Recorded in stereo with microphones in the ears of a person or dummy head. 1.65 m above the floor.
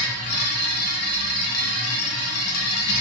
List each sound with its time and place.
0.0 s a machine running: 80° left, 1.2 m